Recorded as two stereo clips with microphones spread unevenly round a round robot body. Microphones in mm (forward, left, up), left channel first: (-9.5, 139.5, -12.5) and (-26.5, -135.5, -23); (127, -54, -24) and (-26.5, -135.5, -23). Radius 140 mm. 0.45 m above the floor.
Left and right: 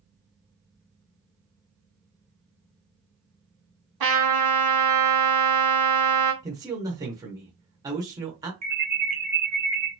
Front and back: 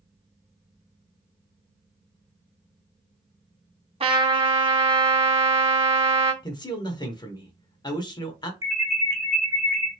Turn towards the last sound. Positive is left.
turn(degrees=-85)